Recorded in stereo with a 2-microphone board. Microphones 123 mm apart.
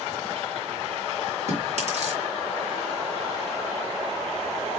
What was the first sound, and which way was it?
Chewing, 65° right (ahead or behind).